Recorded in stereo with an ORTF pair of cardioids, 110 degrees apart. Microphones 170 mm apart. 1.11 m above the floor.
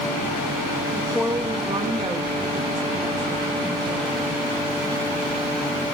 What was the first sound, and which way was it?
A woman speaking, 10° left.